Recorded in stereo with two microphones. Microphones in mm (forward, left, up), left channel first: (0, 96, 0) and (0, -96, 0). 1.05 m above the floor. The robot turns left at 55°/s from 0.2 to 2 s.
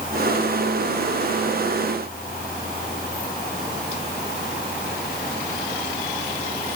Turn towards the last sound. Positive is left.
No sound to turn to.